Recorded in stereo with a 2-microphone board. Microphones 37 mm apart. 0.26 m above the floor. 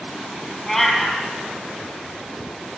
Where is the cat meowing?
15° left (ahead or behind), 1.6 m.